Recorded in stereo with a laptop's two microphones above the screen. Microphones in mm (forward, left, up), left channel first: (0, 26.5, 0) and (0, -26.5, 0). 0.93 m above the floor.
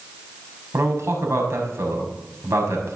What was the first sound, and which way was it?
A man speaking, 55° right (ahead or behind).